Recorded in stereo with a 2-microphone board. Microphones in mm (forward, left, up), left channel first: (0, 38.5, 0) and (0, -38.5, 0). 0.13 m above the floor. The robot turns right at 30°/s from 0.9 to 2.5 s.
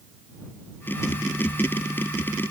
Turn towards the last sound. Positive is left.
No sound to turn to.